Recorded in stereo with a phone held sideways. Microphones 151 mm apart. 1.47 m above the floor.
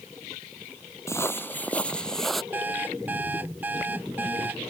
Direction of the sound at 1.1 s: 15° left (ahead or behind).